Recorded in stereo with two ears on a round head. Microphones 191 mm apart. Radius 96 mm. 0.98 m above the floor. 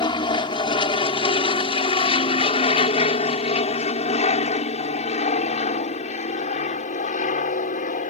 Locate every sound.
0.0 s an aircraft: 25° left (ahead or behind); by 8.1 s 40° left (ahead or behind)